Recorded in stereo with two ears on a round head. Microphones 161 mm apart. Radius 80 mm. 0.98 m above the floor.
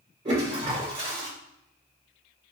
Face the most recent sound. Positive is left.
turn(degrees=-35)  # may be behind; listen again after turning